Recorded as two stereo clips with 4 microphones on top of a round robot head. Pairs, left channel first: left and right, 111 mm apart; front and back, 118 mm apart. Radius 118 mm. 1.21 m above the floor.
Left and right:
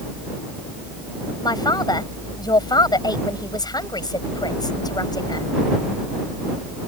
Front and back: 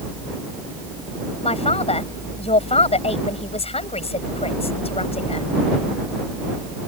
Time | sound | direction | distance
1.4 | a man speaking | 35° left | ?